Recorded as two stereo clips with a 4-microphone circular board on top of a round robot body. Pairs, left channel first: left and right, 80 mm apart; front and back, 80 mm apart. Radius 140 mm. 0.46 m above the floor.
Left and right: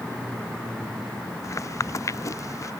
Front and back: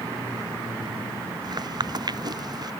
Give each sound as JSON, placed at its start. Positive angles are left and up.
{"t": 1.4, "sound": "footsteps", "azimuth_deg": 145}